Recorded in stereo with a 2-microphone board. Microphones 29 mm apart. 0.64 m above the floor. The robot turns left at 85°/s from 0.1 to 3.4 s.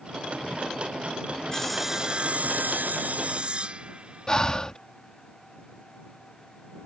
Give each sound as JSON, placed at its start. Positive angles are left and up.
{"t": 1.5, "sound": "sawing", "azimuth_deg": 20}
{"t": 4.3, "sound": "breathing", "side_deg": 25}